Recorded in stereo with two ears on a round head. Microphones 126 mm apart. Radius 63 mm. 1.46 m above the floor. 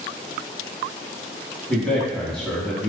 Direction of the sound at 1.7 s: 5° left (ahead or behind).